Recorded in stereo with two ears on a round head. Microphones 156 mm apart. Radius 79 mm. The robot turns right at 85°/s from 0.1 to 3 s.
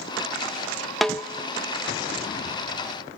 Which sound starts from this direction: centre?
A snare drum, at 1.0 s.